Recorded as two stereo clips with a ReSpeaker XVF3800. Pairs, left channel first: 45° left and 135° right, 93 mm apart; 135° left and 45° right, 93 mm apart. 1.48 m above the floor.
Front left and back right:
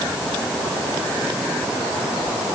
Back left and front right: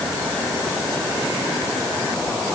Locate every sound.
Only background noise.